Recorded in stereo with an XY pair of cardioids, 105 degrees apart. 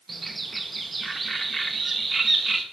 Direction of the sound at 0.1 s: 20° right.